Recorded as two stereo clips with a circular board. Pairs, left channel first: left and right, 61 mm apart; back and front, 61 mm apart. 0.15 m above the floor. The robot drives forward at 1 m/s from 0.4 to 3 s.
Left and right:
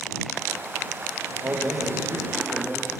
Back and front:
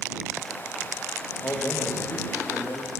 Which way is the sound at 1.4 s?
135° right.